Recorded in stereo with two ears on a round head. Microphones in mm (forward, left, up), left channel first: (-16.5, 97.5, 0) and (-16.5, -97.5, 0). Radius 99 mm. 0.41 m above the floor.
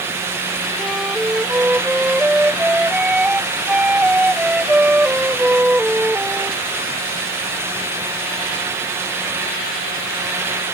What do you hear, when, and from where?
0.8 s a flute: 5° right (ahead or behind)